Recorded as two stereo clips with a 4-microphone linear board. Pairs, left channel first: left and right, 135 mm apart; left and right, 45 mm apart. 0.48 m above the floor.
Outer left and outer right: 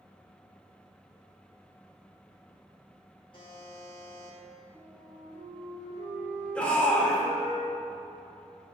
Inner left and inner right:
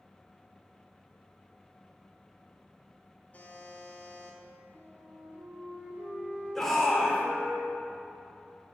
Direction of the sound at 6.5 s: 10° left (ahead or behind).